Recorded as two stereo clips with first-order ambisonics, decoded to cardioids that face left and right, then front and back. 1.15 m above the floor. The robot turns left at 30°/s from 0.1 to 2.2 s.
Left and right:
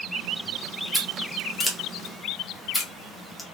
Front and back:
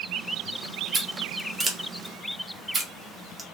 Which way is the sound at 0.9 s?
160° right.